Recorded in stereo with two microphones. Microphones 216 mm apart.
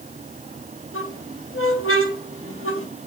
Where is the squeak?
80° left, 3 m.